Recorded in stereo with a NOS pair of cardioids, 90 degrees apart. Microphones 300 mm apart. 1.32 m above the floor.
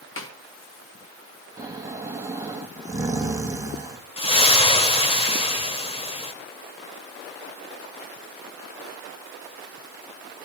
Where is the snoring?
10° right, 2.5 m.